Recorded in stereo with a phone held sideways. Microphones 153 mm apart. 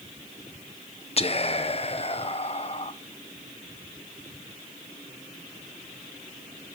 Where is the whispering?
45° left (ahead or behind), 0.5 m.